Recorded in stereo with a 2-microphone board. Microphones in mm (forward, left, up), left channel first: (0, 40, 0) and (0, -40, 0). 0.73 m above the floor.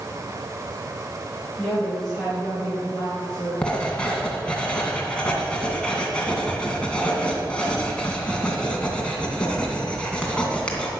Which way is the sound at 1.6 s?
5° left (ahead or behind).